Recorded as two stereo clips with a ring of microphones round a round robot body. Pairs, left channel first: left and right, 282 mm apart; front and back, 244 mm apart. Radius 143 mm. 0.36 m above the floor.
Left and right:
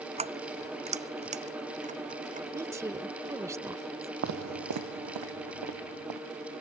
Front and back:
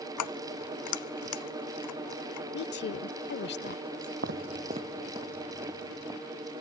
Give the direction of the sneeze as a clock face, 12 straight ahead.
I don't hear a sneeze.